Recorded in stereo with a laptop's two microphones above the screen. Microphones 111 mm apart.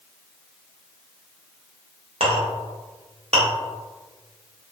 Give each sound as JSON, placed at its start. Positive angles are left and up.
{"t": 2.2, "sound": "a clink", "side_deg": -75, "distance_m": 0.6}